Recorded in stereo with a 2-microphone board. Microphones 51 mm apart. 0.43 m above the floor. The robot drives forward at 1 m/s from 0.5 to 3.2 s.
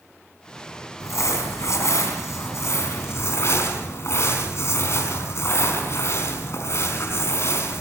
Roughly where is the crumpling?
Left.